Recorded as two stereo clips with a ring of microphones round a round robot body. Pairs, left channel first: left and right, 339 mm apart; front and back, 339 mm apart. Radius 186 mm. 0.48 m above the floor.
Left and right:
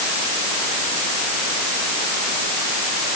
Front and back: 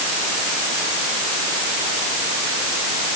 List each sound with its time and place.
Only background noise.